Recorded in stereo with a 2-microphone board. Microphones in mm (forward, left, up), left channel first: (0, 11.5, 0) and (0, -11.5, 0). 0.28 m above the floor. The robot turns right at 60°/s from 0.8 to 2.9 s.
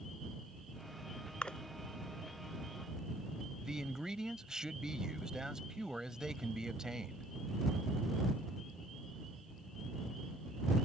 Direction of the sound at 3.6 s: 30° right (ahead or behind).